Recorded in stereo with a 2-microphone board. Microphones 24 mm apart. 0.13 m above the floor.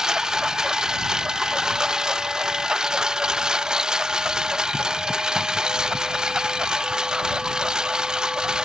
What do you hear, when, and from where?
0.0 s a lawn mower: 20° right (ahead or behind); by 8.7 s 30° right (ahead or behind)